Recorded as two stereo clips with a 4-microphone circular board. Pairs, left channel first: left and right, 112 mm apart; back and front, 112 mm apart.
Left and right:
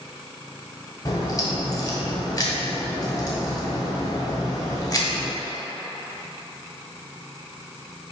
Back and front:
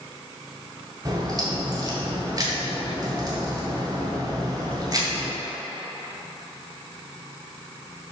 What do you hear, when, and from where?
1.1 s a crack: 45° left, 1.9 m